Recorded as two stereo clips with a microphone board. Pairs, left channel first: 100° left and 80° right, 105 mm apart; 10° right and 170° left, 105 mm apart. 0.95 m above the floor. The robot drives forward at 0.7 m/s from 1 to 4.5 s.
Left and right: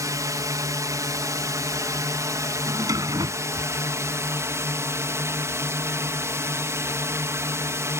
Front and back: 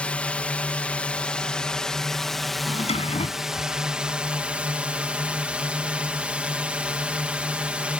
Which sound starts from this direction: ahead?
A drawer, at 2.7 s.